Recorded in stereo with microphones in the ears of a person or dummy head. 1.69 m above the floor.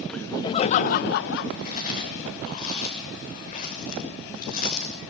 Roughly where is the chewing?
Left.